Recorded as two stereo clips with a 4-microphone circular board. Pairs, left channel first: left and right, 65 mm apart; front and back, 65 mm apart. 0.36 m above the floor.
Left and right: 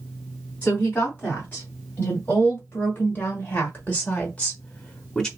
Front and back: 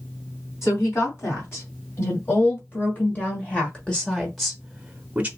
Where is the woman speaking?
35° left, 2.5 m; by 5.3 s 160° left, 1.2 m.